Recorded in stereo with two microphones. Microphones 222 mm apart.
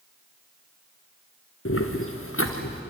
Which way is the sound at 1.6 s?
75° left (ahead or behind).